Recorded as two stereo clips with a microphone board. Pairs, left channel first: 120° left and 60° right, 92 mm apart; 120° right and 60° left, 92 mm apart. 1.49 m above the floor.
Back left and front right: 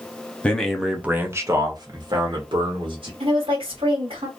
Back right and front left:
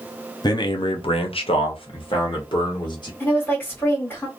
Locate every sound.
0.4 s a man speaking: 165° right, 0.7 m; by 3.1 s 80° right, 1.3 m
3.2 s a woman speaking: 50° right, 1.4 m